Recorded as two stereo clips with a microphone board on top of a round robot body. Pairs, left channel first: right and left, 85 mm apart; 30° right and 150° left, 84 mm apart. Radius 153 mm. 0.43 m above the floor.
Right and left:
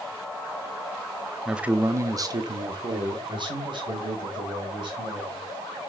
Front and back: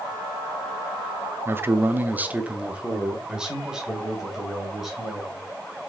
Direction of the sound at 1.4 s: 170° left.